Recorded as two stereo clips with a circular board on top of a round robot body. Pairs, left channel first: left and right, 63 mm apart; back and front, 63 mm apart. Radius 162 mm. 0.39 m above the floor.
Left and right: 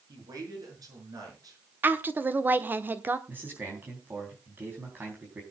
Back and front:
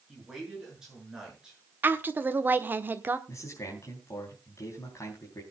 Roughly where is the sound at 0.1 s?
Right.